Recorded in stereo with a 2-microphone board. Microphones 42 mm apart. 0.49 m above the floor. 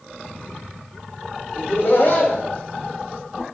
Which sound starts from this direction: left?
Laughter, at 1.6 s.